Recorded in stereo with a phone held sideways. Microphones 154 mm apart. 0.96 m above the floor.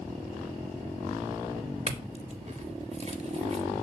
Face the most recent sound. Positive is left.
turn(degrees=-45)  # may be behind; listen again after turning